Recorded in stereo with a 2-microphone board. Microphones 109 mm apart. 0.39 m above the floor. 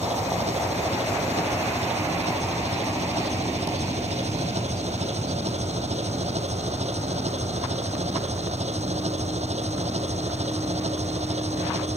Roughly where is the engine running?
Right.